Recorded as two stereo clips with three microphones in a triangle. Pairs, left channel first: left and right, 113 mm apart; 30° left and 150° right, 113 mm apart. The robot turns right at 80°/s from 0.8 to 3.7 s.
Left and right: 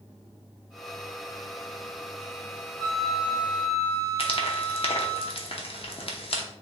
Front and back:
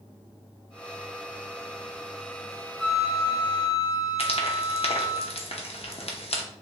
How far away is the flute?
About 1.7 m.